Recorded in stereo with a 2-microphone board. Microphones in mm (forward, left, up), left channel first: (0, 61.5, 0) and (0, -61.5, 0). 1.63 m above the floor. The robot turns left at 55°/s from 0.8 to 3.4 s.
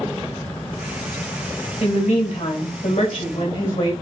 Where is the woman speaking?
125° left, 1.6 m; by 3.9 s 40° left, 1.6 m.